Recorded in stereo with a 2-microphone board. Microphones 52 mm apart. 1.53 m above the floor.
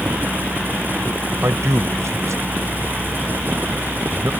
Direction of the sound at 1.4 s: 65° right (ahead or behind).